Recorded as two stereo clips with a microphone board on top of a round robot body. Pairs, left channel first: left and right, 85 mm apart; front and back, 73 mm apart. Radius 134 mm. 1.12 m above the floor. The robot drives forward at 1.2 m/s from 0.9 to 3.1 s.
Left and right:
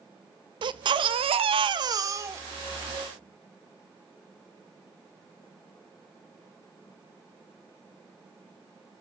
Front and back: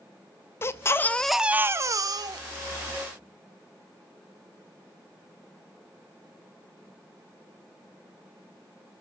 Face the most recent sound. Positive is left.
turn(degrees=-160)